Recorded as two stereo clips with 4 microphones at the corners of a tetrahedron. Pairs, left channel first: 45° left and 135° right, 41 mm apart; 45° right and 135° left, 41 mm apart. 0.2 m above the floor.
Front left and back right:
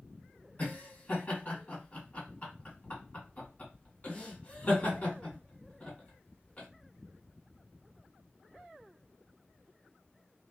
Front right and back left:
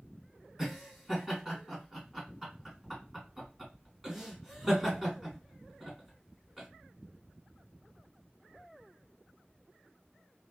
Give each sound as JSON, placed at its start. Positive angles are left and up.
{"t": 0.6, "sound": "laughter", "azimuth_deg": 65, "distance_m": 1.9}